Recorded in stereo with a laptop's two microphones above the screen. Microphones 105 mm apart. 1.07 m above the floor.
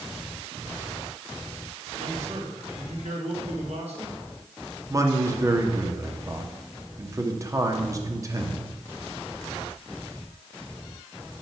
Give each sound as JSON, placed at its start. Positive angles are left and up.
{"t": 2.0, "sound": "a man speaking", "side_deg": -70, "distance_m": 2.0}
{"t": 4.9, "sound": "a man speaking", "side_deg": -30, "distance_m": 1.8}